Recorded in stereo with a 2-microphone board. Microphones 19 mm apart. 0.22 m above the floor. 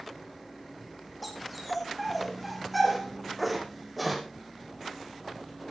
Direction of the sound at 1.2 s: Centre (ahead or behind).